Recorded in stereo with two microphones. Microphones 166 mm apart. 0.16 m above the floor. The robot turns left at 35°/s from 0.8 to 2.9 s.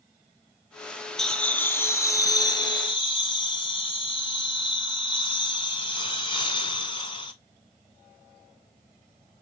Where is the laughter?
175° left, 1.4 m; by 7.3 s 115° left, 1.4 m.